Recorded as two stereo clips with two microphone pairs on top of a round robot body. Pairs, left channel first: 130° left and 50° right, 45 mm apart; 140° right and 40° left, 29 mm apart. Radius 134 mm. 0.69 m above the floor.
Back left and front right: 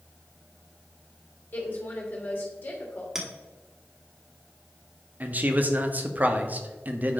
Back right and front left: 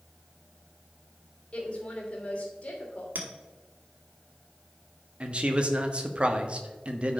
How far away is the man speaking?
About 1.4 m.